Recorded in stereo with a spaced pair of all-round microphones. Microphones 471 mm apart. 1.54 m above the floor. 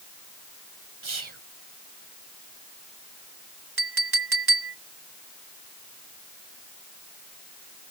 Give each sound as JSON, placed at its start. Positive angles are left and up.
{"t": 1.0, "sound": "whispering", "side_deg": -75}
{"t": 3.8, "sound": "a clink", "side_deg": -50}